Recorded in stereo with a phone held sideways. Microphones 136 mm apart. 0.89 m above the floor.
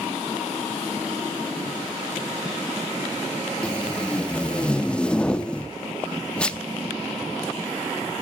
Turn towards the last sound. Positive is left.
turn(degrees=10)  # may be behind; listen again after turning